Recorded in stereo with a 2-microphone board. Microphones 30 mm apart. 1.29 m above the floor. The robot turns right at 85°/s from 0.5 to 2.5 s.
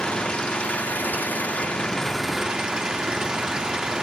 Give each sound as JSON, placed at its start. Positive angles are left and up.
{"t": 0.0, "sound": "an engine running", "azimuth_deg": 35, "distance_m": 1.7}